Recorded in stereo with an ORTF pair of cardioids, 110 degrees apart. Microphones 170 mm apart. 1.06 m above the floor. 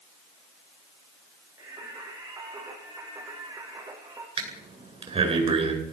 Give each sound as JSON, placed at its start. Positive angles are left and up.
{"t": 1.6, "sound": "singing", "azimuth_deg": -15, "distance_m": 10.0}
{"t": 4.4, "sound": "breathing", "azimuth_deg": -35, "distance_m": 9.5}